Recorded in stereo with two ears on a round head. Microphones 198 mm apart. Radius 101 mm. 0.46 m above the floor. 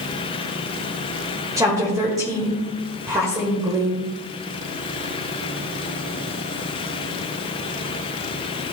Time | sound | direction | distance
1.6 | a woman speaking | 15° right (ahead or behind) | 1.8 m